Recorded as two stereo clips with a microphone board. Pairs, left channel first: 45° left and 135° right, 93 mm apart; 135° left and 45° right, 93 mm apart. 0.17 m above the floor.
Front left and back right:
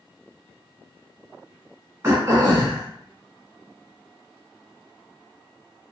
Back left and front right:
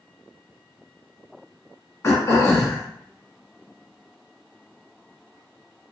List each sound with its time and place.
2.0 s throat clearing: straight behind, 1.0 m